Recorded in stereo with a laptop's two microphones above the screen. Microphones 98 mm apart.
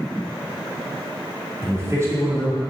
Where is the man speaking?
30° right (ahead or behind), 2 m.